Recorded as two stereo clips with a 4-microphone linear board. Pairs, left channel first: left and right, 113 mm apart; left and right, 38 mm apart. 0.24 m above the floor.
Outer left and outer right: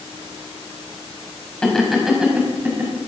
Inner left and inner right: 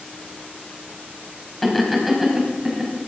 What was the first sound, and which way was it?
Laughter, 5° left (ahead or behind).